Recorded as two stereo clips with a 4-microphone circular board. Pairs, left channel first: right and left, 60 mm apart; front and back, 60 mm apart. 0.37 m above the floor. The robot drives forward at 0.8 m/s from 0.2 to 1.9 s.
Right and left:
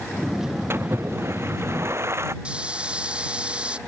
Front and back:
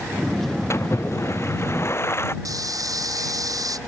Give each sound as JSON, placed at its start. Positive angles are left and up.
{"t": 0.7, "sound": "a splash", "azimuth_deg": 40}
{"t": 2.5, "sound": "frying", "azimuth_deg": 165}